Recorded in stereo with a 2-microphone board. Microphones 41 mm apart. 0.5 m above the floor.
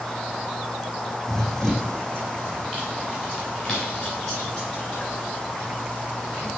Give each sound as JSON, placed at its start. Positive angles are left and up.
{"t": 1.3, "sound": "running footsteps", "side_deg": 10, "distance_m": 1.3}